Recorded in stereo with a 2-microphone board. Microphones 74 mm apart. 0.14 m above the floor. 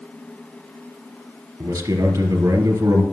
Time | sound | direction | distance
1.6 | a man speaking | 55° right (ahead or behind) | 2.5 m